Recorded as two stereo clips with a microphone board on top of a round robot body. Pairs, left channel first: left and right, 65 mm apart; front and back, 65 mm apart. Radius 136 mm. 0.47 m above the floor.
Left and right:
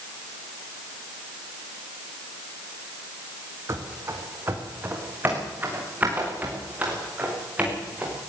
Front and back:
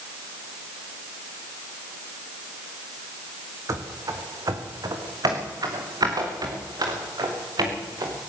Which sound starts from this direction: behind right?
Running footsteps, at 3.7 s.